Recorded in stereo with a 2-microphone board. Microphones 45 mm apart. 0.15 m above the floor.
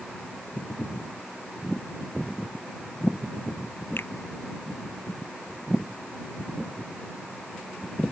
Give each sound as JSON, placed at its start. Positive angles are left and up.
{"t": 4.0, "sound": "a finger snap", "side_deg": 55}